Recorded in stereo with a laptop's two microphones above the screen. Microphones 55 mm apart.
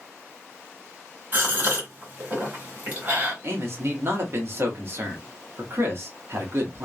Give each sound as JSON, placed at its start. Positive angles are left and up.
{"t": 1.3, "sound": "a gasp", "side_deg": -35, "distance_m": 1.9}
{"t": 3.4, "sound": "a man speaking", "side_deg": -45, "distance_m": 1.1}